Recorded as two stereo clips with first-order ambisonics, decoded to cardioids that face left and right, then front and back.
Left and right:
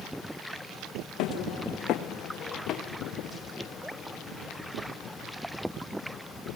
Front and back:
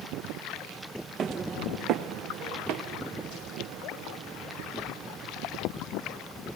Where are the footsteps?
120° left, 1.8 m; by 5.3 s 165° left, 6.5 m.